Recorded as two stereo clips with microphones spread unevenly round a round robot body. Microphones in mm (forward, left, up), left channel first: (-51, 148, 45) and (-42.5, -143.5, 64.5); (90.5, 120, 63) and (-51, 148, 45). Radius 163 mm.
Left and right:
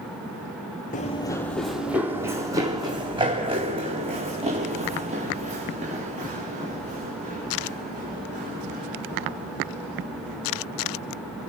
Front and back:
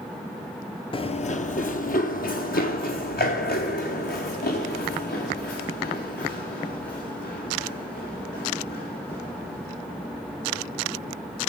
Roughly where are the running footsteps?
Ahead left.